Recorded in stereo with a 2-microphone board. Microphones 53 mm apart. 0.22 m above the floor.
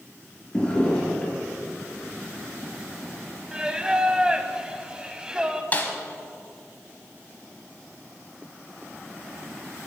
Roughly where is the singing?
Centre.